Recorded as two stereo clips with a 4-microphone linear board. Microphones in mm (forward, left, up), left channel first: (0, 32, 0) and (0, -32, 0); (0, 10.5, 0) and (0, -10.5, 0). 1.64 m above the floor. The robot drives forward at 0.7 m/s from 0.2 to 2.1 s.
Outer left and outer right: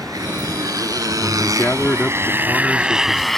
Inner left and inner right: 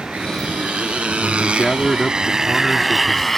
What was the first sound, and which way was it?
A motorcycle, 75° right (ahead or behind).